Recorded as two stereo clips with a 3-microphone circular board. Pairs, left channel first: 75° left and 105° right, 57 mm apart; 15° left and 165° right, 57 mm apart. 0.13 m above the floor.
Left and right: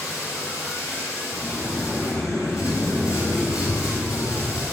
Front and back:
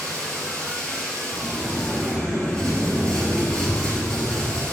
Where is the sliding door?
100° left, 2 m.